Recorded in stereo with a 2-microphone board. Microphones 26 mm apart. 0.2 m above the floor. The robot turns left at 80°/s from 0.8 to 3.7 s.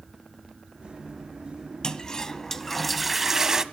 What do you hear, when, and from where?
1.8 s a toilet flushing: 30° left (ahead or behind), 0.5 m; by 3.6 s 25° right (ahead or behind), 0.5 m